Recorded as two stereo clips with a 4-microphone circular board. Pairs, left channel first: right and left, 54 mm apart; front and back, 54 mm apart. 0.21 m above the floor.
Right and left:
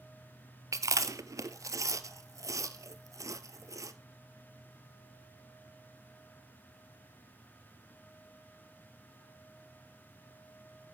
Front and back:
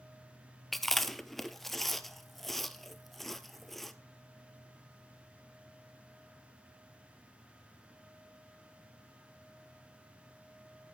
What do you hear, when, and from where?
0.7 s chewing: 85° left, 0.7 m